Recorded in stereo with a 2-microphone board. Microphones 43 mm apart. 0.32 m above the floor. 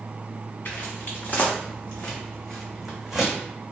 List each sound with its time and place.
0.7 s footsteps: 50° left (ahead or behind), 1.5 m; by 3.3 s 15° right (ahead or behind), 1.1 m